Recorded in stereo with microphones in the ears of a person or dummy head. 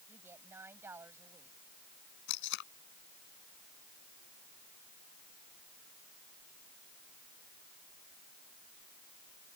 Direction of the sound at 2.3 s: 65° left (ahead or behind).